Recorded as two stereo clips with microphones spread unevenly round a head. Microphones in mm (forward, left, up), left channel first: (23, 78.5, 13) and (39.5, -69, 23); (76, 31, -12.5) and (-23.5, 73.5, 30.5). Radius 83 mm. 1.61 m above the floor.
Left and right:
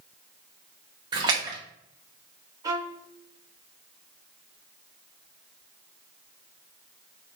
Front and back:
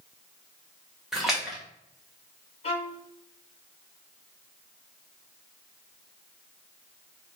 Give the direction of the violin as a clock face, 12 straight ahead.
2 o'clock.